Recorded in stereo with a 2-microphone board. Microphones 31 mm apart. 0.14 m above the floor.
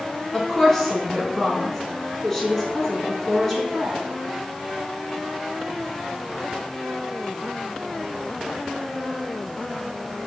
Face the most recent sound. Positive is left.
turn(degrees=15)  # may be behind; listen again after turning